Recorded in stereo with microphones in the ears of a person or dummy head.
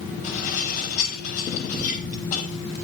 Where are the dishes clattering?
45° left (ahead or behind), 7.5 m.